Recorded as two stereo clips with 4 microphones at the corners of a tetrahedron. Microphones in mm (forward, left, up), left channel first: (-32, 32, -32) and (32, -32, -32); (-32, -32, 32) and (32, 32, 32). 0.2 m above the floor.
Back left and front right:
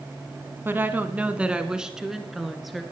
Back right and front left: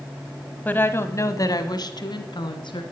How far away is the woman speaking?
About 1.1 m.